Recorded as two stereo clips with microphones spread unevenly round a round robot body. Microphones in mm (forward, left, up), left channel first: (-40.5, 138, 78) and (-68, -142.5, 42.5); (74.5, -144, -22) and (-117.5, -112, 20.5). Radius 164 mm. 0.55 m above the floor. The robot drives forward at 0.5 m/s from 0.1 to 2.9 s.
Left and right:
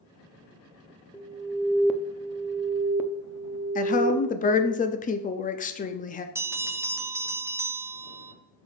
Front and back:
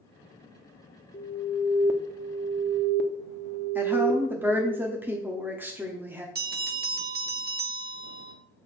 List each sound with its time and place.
1.1 s an alarm: 15° right, 0.7 m; by 4.8 s 170° right, 0.7 m
3.8 s a woman speaking: 70° left, 0.6 m
6.3 s a bell: 165° right, 0.9 m